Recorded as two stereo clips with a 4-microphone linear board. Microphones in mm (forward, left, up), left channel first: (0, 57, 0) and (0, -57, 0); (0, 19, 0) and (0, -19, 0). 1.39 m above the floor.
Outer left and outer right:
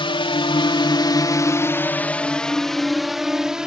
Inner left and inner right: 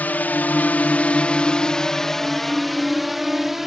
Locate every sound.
0.0 s a drone: 55° left (ahead or behind); by 3.7 s 5° right (ahead or behind)